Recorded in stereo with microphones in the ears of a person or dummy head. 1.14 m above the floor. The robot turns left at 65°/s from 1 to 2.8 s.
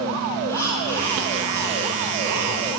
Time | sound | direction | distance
0.5 | breathing | 15° left | 2 m